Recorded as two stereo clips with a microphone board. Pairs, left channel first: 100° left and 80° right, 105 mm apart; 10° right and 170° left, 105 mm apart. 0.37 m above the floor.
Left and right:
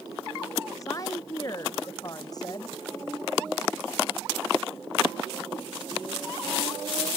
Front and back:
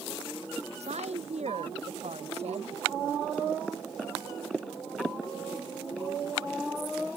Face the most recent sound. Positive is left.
turn(degrees=155)